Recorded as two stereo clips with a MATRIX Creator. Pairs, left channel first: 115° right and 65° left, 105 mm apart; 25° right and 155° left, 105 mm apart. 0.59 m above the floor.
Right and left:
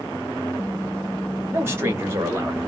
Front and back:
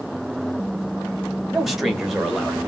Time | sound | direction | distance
1.5 | a man speaking | 75° left | 0.7 m